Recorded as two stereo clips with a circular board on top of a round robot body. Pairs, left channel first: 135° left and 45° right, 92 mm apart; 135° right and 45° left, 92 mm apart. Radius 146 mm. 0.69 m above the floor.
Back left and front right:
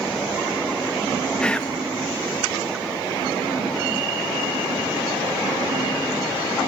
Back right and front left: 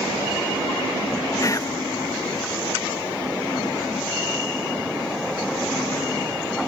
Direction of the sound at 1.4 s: 150° right.